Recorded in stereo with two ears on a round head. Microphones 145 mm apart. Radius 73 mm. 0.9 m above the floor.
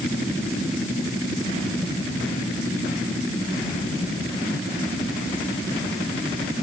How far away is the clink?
I don't hear a clink.